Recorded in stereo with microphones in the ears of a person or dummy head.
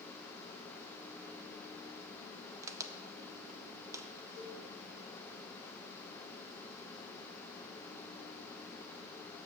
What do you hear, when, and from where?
2.6 s a crack: 10° right (ahead or behind), 0.6 m
4.3 s a cowbell: 65° right (ahead or behind), 5 m